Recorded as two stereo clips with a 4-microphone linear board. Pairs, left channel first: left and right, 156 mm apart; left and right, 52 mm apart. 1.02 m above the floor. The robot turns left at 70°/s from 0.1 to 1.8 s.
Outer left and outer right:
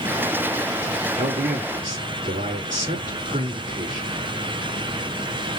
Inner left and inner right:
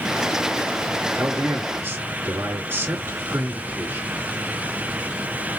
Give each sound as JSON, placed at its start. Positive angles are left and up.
{"t": 1.1, "sound": "a man speaking", "azimuth_deg": -75, "distance_m": 3.0}